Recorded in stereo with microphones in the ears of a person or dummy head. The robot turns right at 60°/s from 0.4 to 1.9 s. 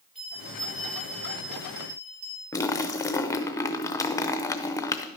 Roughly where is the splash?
Left.